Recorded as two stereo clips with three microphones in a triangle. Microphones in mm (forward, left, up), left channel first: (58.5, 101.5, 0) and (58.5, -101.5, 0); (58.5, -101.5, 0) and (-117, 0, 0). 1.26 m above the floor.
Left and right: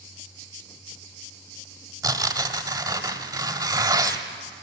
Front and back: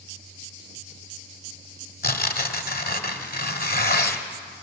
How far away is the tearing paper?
About 1.4 m.